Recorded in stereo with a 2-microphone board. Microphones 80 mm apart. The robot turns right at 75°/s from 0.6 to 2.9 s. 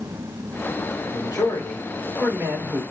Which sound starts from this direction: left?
A man speaking, at 1.1 s.